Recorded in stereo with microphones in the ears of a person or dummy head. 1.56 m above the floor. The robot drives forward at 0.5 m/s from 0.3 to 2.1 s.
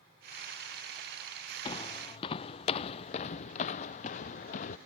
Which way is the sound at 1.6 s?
25° left (ahead or behind).